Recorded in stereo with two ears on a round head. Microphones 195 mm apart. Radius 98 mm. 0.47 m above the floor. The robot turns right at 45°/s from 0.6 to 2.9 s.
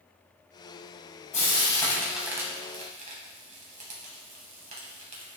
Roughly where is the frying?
Left.